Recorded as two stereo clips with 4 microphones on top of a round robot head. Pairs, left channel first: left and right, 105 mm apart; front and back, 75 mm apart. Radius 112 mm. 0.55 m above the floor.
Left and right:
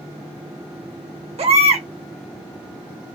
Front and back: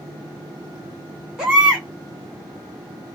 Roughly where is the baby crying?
Right.